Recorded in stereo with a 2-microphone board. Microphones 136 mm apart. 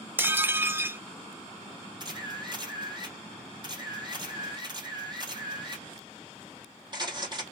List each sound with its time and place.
0.2 s dishes clattering: 15° right (ahead or behind), 0.6 m
2.0 s a camera shutter: 35° right (ahead or behind), 3 m